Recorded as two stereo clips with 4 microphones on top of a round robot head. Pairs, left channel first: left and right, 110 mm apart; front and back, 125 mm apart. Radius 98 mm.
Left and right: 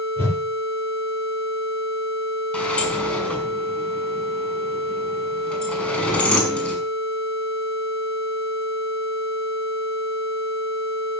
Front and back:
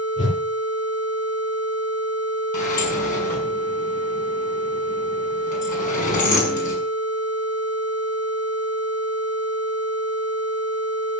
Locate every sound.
0.2 s a whoosh: 20° left, 9 m
2.5 s a sliding door: 10° left, 6 m